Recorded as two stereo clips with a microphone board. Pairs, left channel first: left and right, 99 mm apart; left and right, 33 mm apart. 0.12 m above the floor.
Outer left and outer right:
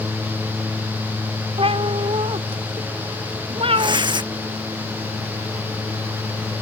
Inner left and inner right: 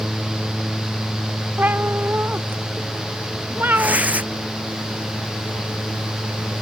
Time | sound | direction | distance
1.6 | a cat meowing | 80° right | ?
3.8 | tearing paper | 55° right (ahead or behind) | ?